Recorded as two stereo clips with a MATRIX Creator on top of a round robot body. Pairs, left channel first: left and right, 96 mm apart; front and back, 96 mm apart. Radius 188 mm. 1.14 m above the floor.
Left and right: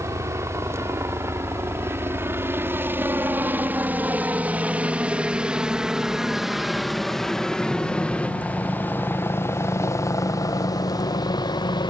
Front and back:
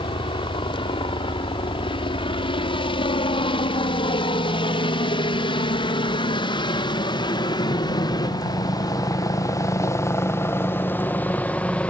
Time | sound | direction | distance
0.0 | a helicopter | 30° right | ?